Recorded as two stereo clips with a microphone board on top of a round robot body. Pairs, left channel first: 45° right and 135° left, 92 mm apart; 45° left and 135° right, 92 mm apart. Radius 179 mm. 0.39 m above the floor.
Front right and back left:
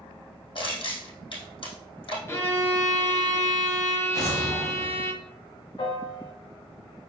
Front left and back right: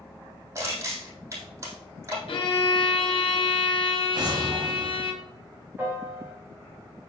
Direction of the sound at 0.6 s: 75° right.